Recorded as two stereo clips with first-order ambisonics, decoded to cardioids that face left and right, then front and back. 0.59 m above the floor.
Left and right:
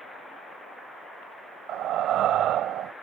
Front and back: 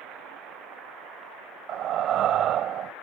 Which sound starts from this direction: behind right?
Breathing, at 1.7 s.